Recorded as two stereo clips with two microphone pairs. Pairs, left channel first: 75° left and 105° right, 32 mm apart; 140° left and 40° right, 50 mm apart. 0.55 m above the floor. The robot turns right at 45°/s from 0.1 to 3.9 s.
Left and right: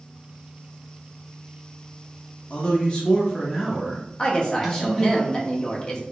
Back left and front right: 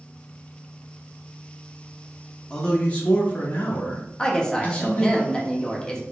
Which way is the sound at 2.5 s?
85° left.